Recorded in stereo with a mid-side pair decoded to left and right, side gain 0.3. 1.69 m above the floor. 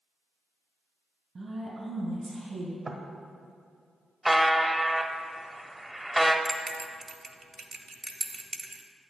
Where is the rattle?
No rattle in this recording.